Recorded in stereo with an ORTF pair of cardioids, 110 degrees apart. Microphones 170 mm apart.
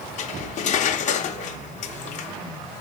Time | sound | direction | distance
0.2 | cutlery clinking | 50° left | 0.6 m